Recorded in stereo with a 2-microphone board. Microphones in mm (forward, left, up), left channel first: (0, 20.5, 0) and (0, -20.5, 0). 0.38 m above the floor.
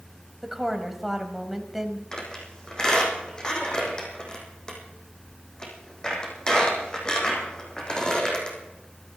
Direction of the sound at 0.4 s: 10° right (ahead or behind).